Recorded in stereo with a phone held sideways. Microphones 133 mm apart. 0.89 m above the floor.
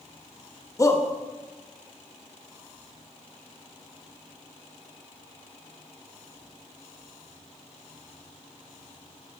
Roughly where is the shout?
Left.